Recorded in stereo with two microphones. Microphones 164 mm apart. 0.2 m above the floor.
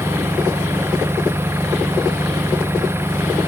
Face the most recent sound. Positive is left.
turn(degrees=-15)  # may be behind; listen again after turning